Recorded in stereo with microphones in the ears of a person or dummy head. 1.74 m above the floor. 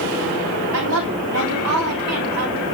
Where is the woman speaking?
65° right (ahead or behind), 4 m; by 2.6 s 80° right, 4 m.